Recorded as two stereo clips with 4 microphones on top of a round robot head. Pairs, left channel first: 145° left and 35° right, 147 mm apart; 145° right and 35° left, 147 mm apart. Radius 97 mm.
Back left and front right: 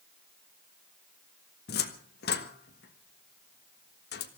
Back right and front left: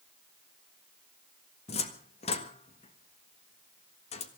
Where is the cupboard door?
165° left, 1.5 m.